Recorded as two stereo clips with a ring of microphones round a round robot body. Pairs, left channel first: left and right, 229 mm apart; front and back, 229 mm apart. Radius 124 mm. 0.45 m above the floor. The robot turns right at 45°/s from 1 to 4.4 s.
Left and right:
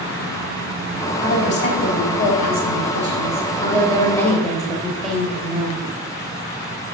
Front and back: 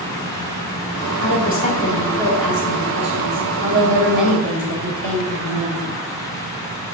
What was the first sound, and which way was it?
A woman speaking, 35° left.